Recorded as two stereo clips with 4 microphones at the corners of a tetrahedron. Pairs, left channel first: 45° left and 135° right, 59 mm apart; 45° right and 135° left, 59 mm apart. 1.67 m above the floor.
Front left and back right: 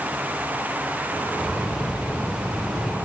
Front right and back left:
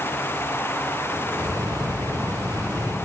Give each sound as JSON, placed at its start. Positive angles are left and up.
{"t": 1.4, "sound": "a bird", "azimuth_deg": 135, "distance_m": 7.5}